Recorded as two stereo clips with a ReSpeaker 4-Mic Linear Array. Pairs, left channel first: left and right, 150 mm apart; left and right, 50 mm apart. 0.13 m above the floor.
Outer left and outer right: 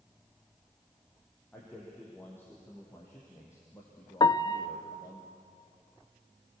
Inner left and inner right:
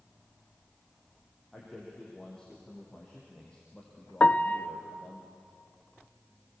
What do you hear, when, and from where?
1.5 s a man speaking: 10° left (ahead or behind), 6 m; by 5.2 s 25° left (ahead or behind), 4.5 m
4.2 s a piano: 30° left (ahead or behind), 0.5 m